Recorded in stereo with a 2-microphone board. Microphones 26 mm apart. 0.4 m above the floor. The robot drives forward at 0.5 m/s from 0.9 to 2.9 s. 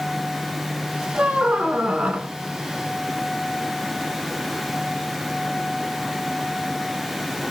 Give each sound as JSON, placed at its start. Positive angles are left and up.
{"t": 1.1, "sound": "a squeak", "side_deg": -45, "distance_m": 1.1}